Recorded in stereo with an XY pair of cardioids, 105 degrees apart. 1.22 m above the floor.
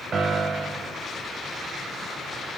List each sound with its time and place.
0.1 s a piano: 50° right, 0.8 m